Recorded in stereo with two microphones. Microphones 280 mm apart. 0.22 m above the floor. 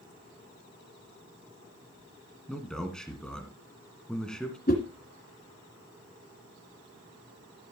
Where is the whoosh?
35° left (ahead or behind), 2.5 m.